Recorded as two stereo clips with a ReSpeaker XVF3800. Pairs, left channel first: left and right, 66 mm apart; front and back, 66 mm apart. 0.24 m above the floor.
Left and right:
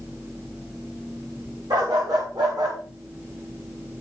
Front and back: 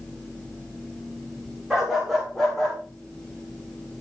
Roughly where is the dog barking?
Right.